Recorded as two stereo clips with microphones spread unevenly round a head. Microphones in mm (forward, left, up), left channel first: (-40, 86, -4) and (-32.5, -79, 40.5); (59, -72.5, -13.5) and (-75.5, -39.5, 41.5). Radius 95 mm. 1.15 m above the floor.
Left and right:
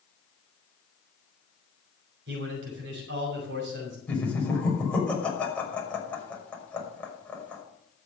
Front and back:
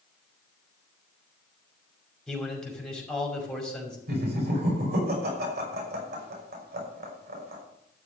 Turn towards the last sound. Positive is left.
turn(degrees=175)